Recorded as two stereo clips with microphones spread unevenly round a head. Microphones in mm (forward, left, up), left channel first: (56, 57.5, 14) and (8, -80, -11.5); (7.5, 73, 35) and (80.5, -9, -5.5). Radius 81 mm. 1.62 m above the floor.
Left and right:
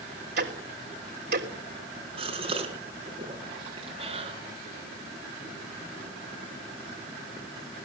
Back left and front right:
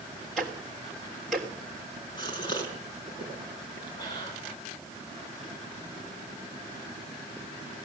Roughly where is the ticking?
Behind right.